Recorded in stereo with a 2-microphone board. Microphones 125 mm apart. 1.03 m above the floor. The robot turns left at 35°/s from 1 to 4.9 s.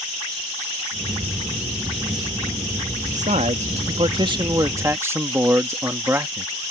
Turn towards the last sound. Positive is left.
turn(degrees=-160)